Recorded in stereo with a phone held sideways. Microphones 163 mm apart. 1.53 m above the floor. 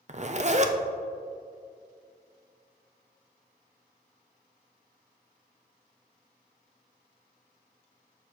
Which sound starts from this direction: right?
A zipper, at 0.1 s.